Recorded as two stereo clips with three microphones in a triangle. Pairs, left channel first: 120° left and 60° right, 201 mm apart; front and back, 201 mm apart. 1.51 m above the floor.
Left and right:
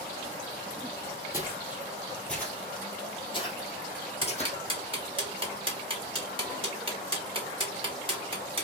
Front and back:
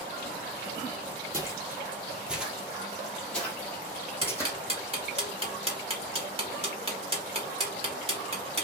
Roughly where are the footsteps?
Behind right.